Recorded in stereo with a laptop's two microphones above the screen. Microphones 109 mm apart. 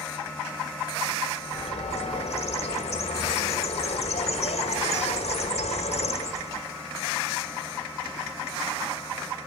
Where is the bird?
80° left, 1.3 m.